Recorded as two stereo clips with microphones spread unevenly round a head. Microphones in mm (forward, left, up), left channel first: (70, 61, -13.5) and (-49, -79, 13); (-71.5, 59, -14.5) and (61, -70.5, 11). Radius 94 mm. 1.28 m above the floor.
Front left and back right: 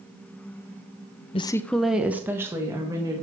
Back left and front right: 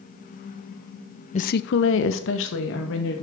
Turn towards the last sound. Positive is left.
turn(degrees=155)